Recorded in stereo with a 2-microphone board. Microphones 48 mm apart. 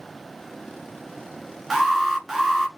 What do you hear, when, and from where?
1.7 s an alarm: 10° right (ahead or behind), 1.0 m